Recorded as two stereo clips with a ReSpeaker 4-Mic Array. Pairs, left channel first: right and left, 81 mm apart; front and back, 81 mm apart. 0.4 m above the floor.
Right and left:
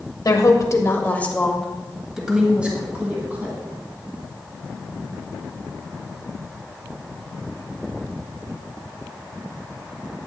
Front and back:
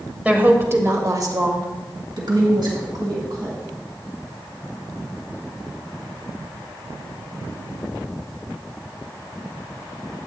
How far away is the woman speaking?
About 1.5 m.